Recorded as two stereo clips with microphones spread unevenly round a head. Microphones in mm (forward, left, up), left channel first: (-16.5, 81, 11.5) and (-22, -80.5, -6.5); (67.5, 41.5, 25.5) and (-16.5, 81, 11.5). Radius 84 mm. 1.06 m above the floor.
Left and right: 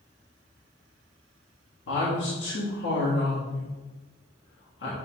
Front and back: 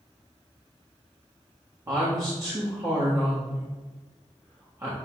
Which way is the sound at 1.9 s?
100° left.